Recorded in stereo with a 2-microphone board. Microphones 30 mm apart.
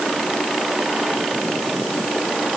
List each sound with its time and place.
Only background noise.